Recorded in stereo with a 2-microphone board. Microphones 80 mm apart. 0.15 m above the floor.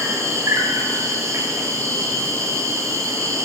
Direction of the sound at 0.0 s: 40° right (ahead or behind).